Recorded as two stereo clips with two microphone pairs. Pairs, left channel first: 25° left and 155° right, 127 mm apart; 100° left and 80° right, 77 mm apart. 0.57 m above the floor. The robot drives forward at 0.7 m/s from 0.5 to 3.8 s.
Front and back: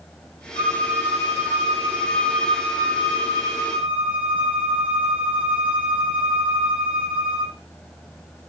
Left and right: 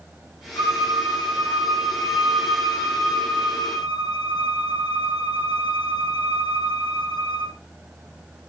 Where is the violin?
60° left, 9.5 m; by 7.5 s 70° left, 8.5 m.